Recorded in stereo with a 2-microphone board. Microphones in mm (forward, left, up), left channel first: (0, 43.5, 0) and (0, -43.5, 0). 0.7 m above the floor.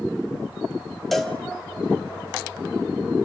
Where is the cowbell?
Centre (ahead or behind), 1.7 m.